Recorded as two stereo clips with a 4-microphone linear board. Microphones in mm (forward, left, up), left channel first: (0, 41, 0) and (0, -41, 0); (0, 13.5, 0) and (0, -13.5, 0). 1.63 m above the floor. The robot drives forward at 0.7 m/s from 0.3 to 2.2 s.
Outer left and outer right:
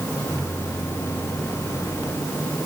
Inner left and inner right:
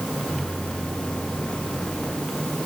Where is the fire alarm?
I don't hear a fire alarm.